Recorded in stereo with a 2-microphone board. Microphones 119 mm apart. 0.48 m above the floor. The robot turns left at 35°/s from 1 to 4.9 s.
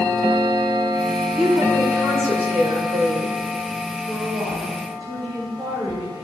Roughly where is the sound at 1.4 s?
Ahead.